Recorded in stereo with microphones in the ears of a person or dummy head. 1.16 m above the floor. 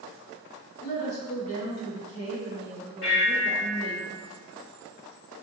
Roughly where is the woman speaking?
Left.